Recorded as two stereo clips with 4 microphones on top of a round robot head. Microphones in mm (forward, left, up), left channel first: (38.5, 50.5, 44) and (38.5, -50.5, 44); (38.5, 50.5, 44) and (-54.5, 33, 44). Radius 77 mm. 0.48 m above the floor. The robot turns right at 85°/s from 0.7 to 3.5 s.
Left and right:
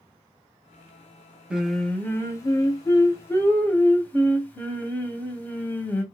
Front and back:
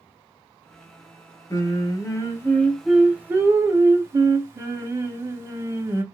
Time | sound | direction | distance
1.5 | singing | 20° right | 0.8 m